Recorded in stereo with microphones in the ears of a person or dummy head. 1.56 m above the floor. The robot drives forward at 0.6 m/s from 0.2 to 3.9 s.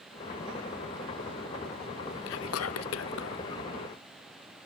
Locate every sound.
2.3 s whispering: 70° left (ahead or behind), 0.9 m; by 3.4 s 55° left (ahead or behind), 1.0 m